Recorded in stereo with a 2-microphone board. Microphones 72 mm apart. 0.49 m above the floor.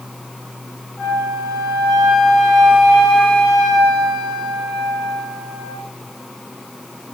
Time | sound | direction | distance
1.0 | a flute | centre (ahead or behind) | 3.5 m